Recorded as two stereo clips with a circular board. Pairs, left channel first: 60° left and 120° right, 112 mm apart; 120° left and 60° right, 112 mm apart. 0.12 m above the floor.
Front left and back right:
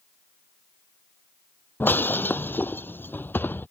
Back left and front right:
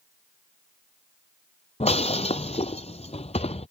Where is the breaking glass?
130° left.